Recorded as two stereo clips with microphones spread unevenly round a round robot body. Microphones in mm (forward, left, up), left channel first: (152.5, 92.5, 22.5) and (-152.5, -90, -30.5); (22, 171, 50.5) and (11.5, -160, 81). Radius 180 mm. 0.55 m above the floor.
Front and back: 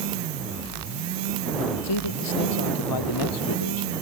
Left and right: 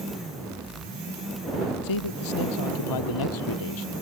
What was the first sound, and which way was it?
A man speaking, 65° left.